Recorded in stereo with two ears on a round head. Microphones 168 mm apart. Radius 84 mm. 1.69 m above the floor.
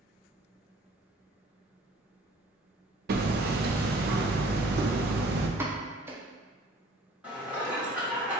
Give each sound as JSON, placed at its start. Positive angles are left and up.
{"t": 3.1, "sound": "hammering", "side_deg": -55, "distance_m": 0.5}
{"t": 5.6, "sound": "a pop", "side_deg": -10, "distance_m": 0.7}
{"t": 7.2, "sound": "dishes clattering", "side_deg": -10, "distance_m": 1.3}